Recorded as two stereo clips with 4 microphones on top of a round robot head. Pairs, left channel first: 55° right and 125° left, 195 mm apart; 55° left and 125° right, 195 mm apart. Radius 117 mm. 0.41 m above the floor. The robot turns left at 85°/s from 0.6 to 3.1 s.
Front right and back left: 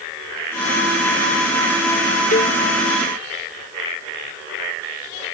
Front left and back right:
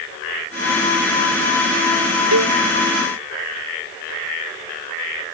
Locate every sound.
2.3 s a cowbell: 110° right; by 2.6 s 130° right